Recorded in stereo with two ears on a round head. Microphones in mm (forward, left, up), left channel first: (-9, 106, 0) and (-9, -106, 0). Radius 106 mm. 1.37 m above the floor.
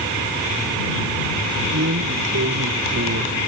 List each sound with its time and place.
1.7 s a drawer: 45° right (ahead or behind)